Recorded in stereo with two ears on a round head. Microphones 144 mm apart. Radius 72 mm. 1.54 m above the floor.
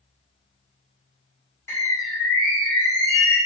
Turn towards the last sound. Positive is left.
turn(degrees=20)  # may be behind; listen again after turning